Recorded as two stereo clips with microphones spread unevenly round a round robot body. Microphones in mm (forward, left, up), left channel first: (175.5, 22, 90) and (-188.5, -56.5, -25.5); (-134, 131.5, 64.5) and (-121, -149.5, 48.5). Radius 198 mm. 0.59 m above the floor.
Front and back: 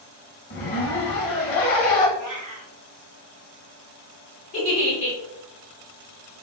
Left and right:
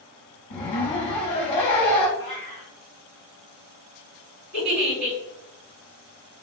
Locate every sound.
0.5 s a zipper: 55° left, 0.7 m
2.2 s a cat meowing: 65° right, 1.9 m
4.5 s a giggle: 40° right, 1.9 m